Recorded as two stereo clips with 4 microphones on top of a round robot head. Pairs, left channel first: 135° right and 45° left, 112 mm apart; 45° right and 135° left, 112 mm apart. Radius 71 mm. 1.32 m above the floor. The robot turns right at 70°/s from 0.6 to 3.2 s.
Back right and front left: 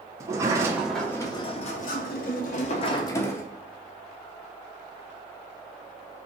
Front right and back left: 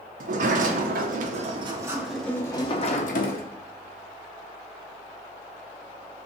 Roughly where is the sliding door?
Behind left.